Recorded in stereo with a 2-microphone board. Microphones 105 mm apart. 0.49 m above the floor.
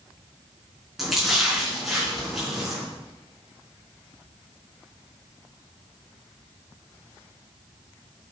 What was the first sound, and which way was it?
A splash, centre (ahead or behind).